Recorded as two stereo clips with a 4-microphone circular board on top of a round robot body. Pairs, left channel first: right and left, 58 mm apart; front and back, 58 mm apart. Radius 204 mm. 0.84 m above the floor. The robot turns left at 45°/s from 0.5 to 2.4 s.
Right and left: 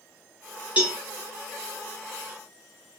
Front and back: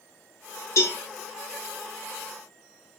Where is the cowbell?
25° left, 1.3 m; by 1.0 s 15° left, 1.3 m.